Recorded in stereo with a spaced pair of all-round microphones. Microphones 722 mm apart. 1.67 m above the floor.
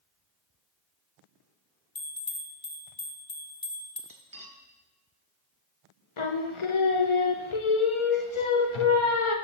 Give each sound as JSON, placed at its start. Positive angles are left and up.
{"t": 1.9, "sound": "a bell", "side_deg": 30, "distance_m": 0.8}
{"t": 4.1, "sound": "cutlery clinking", "side_deg": -30, "distance_m": 0.8}
{"t": 6.2, "sound": "singing", "side_deg": 45, "distance_m": 0.7}